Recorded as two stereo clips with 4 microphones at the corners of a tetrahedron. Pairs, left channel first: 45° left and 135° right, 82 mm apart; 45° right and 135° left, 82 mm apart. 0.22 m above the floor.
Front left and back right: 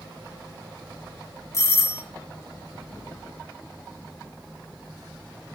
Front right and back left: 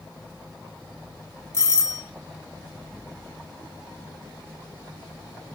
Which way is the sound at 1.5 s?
5° left.